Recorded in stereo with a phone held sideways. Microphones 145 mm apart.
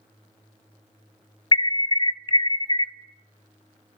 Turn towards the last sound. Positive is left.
turn(degrees=35)  # may be behind; listen again after turning